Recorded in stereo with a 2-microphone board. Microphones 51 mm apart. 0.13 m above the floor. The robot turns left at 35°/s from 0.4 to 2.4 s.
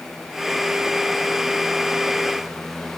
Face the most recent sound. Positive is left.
No sound to turn to.